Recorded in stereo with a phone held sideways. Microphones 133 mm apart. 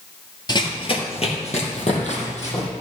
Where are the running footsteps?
30° left (ahead or behind), 1.8 m; by 2.7 s 55° left (ahead or behind), 4 m.